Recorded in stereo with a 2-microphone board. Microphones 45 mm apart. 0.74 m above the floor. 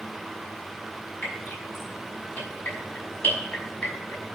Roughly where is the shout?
I don't hear a shout.